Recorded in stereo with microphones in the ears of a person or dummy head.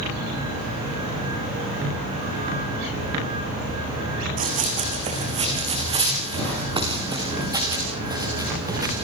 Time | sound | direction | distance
4.4 | running footsteps | 40° right (ahead or behind) | 3.5 m